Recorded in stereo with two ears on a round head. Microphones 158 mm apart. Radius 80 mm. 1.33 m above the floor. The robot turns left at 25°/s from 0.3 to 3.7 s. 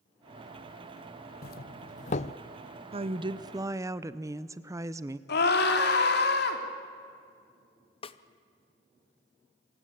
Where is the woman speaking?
35° right (ahead or behind), 0.9 m; by 5.2 s 20° right (ahead or behind), 0.9 m.